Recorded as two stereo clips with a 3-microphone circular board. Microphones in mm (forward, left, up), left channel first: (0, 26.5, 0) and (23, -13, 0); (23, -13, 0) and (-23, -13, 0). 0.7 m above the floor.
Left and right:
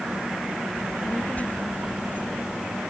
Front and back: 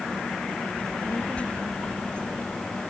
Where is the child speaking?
60° left; by 2.8 s 75° left.